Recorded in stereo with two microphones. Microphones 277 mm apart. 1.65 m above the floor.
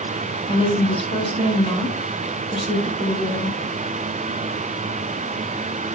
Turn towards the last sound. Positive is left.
turn(degrees=20)  # may be behind; listen again after turning